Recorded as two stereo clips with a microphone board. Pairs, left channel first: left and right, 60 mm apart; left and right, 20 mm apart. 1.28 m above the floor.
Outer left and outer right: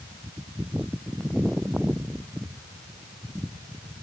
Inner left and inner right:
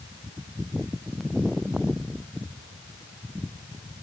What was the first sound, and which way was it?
Only background noise.